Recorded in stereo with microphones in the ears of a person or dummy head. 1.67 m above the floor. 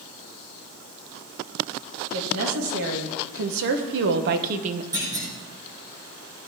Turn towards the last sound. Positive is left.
turn(degrees=-20)  # may be behind; listen again after turning